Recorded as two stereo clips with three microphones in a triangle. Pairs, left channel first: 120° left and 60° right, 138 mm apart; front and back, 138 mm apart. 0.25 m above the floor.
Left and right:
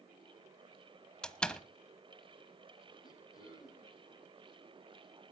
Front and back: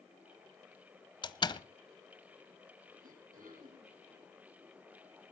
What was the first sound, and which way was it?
A door slam, 40° left.